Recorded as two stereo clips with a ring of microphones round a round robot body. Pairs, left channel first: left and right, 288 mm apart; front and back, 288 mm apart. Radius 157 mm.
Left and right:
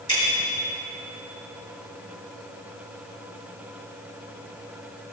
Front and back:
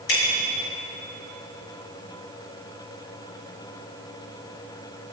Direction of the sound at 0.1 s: 10° left.